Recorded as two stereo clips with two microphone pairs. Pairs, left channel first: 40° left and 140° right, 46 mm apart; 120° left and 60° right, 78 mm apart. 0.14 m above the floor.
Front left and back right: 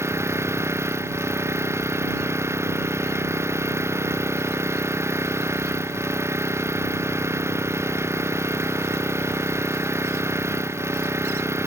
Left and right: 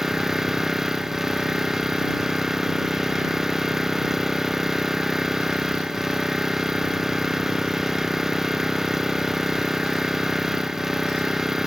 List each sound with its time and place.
0.0 s an engine running: 145° right